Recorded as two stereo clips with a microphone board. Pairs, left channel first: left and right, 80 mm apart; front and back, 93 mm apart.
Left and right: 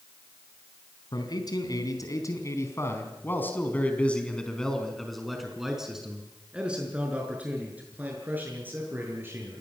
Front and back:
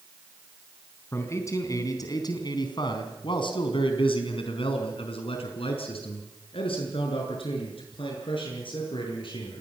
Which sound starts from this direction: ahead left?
A man speaking, at 1.1 s.